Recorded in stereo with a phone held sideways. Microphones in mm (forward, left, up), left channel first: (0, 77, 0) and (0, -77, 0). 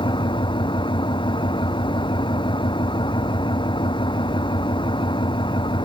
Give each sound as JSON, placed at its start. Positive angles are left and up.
{"t": 0.0, "sound": "an engine running", "side_deg": 30}